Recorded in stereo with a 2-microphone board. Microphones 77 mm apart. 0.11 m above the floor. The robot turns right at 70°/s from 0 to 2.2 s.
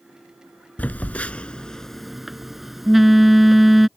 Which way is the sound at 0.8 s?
20° left (ahead or behind).